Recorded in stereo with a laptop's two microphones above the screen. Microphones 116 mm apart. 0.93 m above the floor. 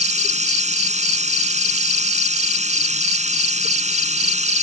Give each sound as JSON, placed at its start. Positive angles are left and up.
{"t": 0.0, "sound": "running water", "side_deg": -75}